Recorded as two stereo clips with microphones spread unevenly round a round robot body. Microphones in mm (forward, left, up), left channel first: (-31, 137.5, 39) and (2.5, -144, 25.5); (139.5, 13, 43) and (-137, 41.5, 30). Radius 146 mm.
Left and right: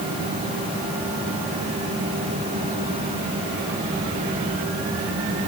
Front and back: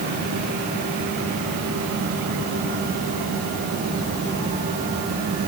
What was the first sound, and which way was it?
Only background noise.